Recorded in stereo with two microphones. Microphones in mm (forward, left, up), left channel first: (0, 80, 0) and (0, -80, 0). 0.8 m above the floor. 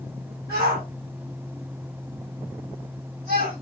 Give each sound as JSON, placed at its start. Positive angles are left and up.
{"t": 0.5, "sound": "a shout", "side_deg": -80, "distance_m": 7.0}